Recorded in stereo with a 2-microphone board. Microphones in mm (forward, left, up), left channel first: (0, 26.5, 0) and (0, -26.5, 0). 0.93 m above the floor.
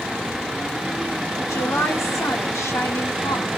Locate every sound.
1.4 s a woman speaking: 65° left (ahead or behind), 2.5 m